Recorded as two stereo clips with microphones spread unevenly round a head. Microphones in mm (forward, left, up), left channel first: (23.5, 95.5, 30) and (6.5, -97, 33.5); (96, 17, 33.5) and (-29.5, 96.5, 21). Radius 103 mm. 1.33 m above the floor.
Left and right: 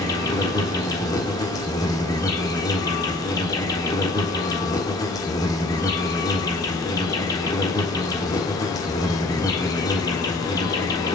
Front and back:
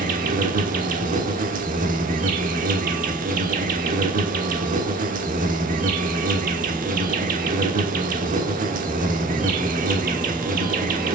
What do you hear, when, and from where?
0.0 s an insect: 155° left, 1.2 m